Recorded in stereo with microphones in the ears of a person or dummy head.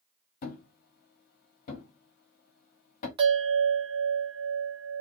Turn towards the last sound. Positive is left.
turn(degrees=-25)  # may be behind; listen again after turning